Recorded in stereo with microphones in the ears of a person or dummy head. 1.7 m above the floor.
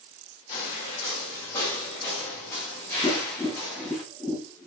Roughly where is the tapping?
Centre.